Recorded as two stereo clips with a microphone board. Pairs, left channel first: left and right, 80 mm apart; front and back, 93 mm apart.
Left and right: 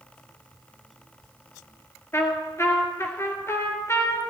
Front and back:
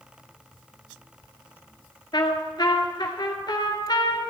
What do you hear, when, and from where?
2.1 s a trumpet: 35° left, 2.0 m